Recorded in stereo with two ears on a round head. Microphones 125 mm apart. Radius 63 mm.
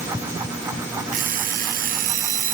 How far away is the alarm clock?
About 2.5 m.